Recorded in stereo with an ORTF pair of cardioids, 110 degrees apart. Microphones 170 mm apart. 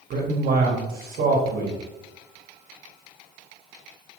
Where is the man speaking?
60° right, 1.5 m.